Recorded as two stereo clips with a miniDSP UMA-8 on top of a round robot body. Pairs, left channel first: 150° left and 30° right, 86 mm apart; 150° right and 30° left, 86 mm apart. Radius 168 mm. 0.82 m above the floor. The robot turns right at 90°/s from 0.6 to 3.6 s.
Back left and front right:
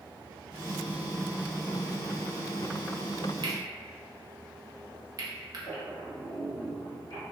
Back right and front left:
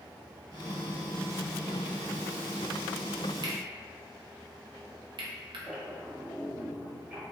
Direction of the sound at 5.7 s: 100° left.